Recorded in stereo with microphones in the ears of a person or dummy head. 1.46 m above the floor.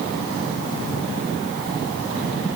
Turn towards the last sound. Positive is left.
No sound to turn to.